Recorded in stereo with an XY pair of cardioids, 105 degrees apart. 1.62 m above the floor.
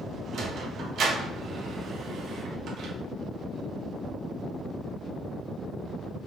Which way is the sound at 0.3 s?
65° right.